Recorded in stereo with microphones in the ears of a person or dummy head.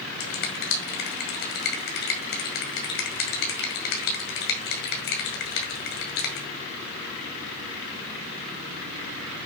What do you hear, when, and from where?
0.2 s a finger snap: 65° left (ahead or behind), 1.8 m